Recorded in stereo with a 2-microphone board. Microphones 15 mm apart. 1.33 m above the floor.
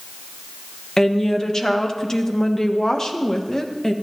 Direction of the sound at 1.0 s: 35° left (ahead or behind).